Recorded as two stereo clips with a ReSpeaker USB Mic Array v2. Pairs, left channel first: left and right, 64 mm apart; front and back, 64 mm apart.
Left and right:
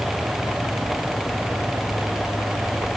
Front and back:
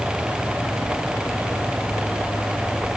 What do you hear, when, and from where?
Only background noise.